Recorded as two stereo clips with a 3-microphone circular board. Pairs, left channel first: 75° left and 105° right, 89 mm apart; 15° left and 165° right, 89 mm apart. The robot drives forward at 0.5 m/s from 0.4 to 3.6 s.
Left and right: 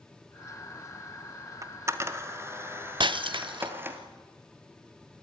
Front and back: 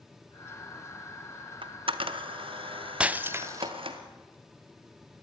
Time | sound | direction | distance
1.6 | a camera shutter | 160° right | 0.9 m
3.0 | breaking glass | 90° right | 0.6 m